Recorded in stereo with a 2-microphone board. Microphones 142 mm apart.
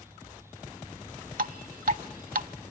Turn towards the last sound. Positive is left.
turn(degrees=-75)  # may be behind; listen again after turning